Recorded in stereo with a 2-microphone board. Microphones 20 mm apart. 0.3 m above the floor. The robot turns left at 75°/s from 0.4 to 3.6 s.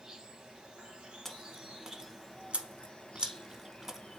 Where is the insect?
40° right, 1.2 m; by 4.2 s 80° left, 1.2 m.